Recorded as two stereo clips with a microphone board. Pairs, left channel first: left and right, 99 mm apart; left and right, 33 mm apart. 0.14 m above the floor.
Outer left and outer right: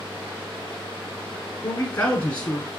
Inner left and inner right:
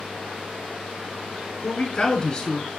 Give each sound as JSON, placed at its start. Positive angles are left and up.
{"t": 1.6, "sound": "a man speaking", "side_deg": 20, "distance_m": 1.3}